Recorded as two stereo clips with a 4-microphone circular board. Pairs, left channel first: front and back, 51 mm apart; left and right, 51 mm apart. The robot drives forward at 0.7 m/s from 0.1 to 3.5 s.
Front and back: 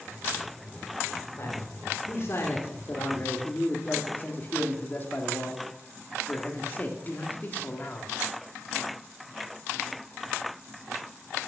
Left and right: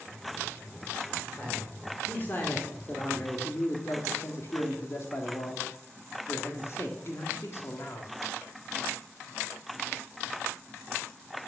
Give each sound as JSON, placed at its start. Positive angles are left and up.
{"t": 1.4, "sound": "a man speaking", "azimuth_deg": 30, "distance_m": 3.0}